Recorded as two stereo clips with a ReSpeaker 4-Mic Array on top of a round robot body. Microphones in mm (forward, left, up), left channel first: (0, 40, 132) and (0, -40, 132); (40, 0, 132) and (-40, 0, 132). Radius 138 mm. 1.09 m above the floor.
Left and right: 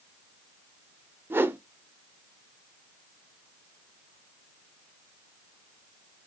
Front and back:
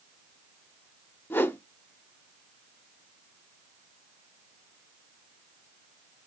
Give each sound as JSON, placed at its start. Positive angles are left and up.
{"t": 1.3, "sound": "a whoosh", "azimuth_deg": -45, "distance_m": 0.8}